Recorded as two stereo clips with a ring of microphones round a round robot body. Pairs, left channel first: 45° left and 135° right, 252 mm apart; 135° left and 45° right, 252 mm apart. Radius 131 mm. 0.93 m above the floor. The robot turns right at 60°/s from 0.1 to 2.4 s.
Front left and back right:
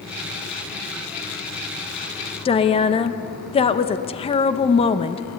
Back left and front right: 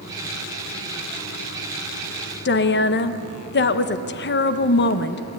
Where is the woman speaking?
105° left, 1.0 m.